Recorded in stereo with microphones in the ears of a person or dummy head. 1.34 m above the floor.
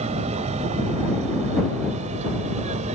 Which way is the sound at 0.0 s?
35° right (ahead or behind).